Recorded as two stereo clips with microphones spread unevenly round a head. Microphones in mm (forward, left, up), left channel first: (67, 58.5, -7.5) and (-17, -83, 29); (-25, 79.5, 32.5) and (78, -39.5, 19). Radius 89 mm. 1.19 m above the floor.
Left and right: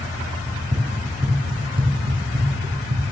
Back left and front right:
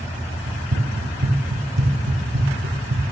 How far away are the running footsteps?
About 2.5 m.